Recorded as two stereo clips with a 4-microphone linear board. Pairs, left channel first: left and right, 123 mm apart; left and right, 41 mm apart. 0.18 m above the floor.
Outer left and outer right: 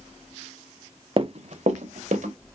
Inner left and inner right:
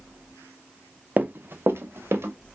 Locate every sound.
1.2 s running footsteps: 40° right (ahead or behind), 0.5 m; by 2.3 s 85° right, 1.6 m